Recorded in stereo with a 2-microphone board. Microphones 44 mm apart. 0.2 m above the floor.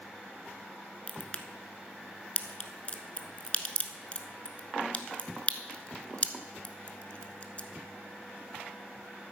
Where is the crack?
30° left (ahead or behind), 0.9 m.